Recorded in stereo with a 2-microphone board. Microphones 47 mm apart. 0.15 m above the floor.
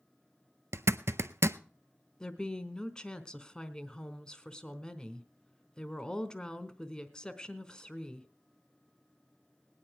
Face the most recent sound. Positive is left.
turn(degrees=20)  # may be behind; listen again after turning